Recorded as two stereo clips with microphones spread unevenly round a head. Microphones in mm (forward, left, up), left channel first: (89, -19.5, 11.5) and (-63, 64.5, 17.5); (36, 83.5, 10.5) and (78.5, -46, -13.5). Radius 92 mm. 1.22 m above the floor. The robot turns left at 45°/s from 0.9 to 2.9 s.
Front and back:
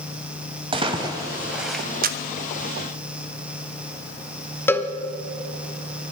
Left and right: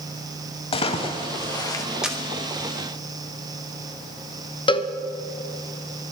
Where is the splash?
100° left, 1.4 m; by 1.9 s 60° left, 1.4 m.